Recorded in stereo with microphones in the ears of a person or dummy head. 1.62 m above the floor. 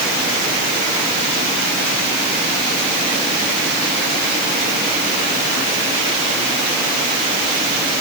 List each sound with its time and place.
Only background noise.